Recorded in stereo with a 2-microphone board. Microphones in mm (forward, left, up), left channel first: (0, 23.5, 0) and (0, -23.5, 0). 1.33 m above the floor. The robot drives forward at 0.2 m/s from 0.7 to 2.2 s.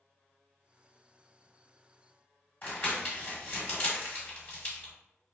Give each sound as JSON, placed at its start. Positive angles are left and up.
{"t": 2.6, "sound": "crumpling", "side_deg": 40, "distance_m": 1.4}